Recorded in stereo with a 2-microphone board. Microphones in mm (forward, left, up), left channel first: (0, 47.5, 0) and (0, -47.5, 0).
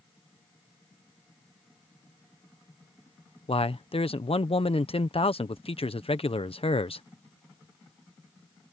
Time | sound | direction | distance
3.5 | a man speaking | 80° left | ?